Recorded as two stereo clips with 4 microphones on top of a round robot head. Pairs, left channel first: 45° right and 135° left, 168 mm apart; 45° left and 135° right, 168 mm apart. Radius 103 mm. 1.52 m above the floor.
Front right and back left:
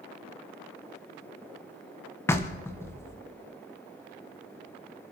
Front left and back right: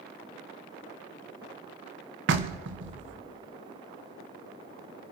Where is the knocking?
120° right, 1.3 m.